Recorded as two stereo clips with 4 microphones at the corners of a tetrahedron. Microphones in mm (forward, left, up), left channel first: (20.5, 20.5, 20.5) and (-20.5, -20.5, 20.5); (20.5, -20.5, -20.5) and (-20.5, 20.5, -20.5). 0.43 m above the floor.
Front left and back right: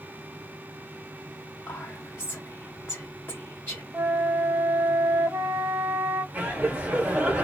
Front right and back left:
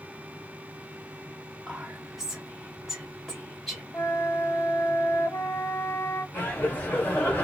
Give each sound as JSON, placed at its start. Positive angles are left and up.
{"t": 1.7, "sound": "whispering", "azimuth_deg": 55, "distance_m": 0.9}
{"t": 3.9, "sound": "a flute", "azimuth_deg": -90, "distance_m": 0.6}
{"t": 6.3, "sound": "laughter", "azimuth_deg": -85, "distance_m": 1.4}